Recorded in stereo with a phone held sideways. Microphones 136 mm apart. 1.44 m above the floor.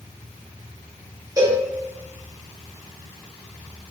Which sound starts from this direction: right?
A cowbell, at 1.4 s.